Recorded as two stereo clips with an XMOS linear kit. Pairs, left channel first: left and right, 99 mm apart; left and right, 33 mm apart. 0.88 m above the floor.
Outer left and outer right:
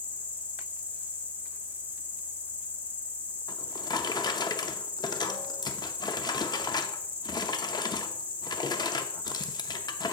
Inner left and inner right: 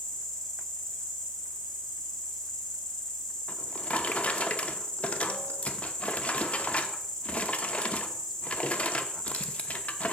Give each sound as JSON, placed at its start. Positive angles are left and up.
{"t": 0.0, "sound": "an insect", "side_deg": 15, "distance_m": 1.3}
{"t": 3.5, "sound": "a drawer", "side_deg": 45, "distance_m": 0.6}